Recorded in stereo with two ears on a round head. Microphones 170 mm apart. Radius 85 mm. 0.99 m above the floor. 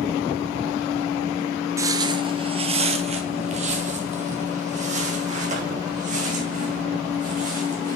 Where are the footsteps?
15° right (ahead or behind), 1.0 m; by 8.0 s 40° right (ahead or behind), 5.5 m.